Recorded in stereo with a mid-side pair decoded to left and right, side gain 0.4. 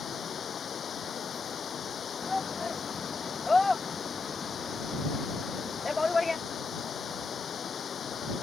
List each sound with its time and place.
0.0 s running water: 55° left
2.2 s a shout: 25° left